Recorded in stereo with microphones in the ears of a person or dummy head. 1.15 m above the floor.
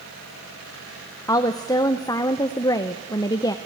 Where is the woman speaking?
15° left (ahead or behind), 0.7 m.